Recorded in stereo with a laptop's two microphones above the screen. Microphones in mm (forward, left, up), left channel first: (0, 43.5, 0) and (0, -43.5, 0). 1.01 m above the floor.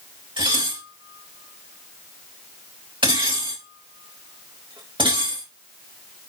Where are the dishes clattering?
65° right (ahead or behind), 3.5 m.